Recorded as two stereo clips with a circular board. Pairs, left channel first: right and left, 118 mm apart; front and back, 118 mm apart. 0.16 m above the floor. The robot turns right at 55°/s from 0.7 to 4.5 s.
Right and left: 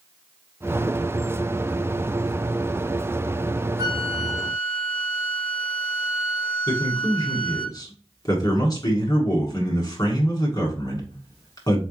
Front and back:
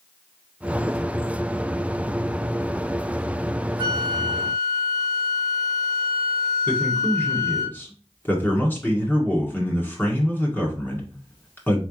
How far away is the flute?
About 1.0 m.